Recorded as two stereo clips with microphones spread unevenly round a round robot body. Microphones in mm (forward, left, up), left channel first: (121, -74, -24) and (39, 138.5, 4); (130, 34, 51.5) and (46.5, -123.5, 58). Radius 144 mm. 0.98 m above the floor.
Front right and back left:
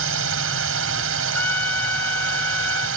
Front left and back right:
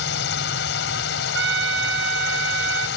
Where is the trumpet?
155° right.